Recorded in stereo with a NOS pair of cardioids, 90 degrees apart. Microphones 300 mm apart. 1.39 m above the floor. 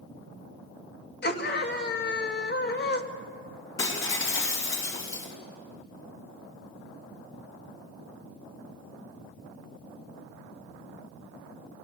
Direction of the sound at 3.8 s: 45° left.